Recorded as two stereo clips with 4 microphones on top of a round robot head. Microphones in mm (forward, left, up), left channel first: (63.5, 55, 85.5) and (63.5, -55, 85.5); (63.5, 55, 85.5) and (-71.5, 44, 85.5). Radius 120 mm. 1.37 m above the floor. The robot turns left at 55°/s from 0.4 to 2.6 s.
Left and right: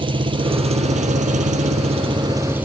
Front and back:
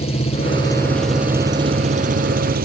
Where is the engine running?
45° right; by 2.6 s 170° right.